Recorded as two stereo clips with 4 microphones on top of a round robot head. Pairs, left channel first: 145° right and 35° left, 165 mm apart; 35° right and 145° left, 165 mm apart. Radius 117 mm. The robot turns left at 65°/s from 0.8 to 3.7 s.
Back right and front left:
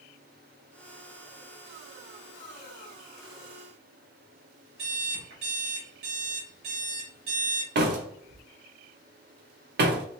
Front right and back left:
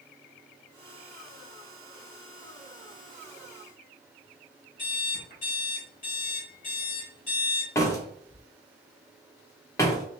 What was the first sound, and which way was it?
An alarm clock, 5° left.